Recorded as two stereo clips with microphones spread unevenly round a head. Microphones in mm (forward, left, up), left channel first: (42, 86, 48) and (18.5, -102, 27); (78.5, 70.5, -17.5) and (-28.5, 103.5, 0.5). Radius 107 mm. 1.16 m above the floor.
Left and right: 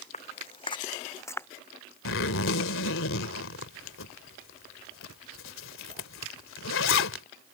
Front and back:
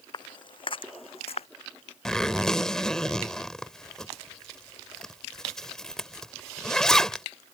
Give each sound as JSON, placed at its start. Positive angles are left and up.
{"t": 0.1, "sound": "footsteps", "azimuth_deg": 30}
{"t": 2.0, "sound": "a zipper", "azimuth_deg": 70}